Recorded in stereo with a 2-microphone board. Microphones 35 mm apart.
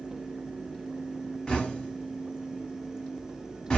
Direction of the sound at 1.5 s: 25° left (ahead or behind).